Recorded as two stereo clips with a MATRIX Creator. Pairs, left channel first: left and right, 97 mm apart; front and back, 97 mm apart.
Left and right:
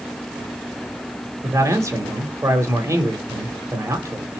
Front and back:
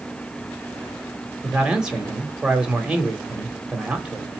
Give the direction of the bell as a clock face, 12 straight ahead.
I don't hear a bell.